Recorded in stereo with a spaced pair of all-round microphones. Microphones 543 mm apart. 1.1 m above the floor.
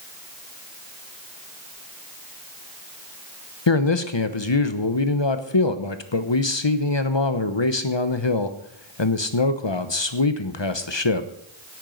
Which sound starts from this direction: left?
A man speaking, at 3.7 s.